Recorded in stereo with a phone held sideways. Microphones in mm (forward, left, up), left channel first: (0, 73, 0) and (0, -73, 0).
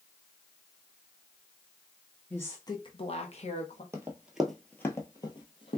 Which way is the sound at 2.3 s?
10° left (ahead or behind).